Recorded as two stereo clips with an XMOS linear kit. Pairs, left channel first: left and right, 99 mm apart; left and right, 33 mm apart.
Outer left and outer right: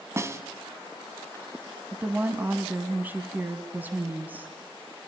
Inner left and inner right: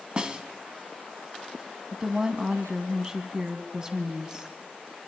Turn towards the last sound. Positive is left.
turn(degrees=-20)  # may be behind; listen again after turning